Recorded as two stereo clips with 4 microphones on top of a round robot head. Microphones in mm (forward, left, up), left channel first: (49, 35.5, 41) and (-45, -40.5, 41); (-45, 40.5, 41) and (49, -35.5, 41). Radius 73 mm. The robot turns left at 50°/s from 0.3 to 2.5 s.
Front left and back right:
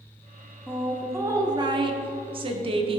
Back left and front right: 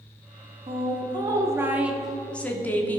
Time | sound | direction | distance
0.7 | a woman speaking | 55° right | 1.4 m